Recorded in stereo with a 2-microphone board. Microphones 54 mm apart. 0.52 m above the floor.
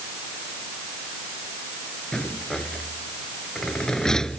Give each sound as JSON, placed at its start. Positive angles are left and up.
{"t": 2.1, "sound": "a rattle", "side_deg": 10}